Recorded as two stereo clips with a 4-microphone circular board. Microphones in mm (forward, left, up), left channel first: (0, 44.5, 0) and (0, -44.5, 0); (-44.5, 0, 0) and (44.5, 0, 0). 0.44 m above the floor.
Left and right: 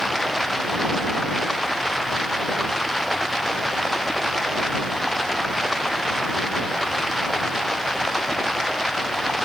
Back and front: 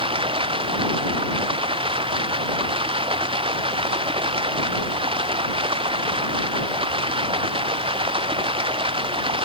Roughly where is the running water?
Ahead.